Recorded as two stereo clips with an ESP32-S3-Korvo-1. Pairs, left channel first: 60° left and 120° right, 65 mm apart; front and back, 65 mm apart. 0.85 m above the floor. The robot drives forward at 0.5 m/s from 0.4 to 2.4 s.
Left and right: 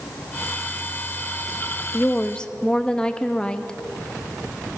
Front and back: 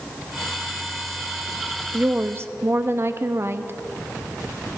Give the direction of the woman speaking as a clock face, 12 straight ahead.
8 o'clock.